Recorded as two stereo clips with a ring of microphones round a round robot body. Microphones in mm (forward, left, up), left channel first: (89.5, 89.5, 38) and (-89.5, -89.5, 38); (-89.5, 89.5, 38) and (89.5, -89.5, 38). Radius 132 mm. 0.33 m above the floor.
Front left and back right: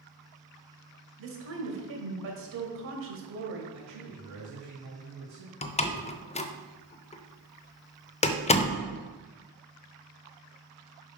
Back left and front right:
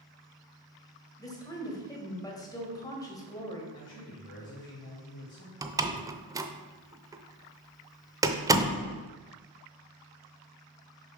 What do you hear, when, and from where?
1.2 s a woman speaking: 150° right, 1.7 m
3.7 s a man speaking: 170° right, 2.5 m
5.6 s a door slam: 15° left, 0.5 m